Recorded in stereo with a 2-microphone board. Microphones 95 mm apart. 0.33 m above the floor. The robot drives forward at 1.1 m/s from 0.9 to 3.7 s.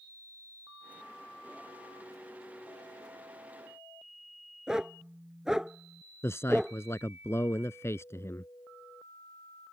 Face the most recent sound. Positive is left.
turn(degrees=25)  # may be behind; listen again after turning